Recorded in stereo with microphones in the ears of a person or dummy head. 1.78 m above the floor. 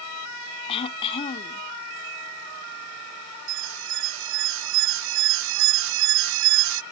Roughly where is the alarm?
Right.